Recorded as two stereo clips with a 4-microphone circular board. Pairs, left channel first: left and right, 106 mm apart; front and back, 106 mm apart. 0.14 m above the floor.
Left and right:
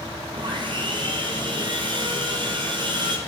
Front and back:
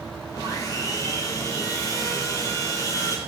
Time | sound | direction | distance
0.3 | sawing | 55° right | 1.5 m